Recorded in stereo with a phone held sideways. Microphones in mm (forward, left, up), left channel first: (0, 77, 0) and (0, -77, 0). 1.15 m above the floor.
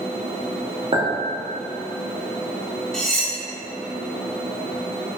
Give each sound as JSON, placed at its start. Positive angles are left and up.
{"t": 0.9, "sound": "a clink", "side_deg": -40, "distance_m": 0.8}
{"t": 2.9, "sound": "cutlery clinking", "side_deg": 5, "distance_m": 0.6}